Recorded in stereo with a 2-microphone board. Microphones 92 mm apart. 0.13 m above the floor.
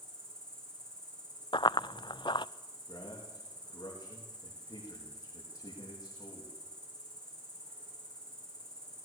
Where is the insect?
75° right (ahead or behind), 7.5 m.